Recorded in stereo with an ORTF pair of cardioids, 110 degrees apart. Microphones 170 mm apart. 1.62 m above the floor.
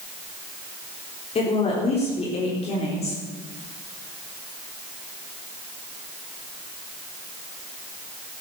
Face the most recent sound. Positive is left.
turn(degrees=40)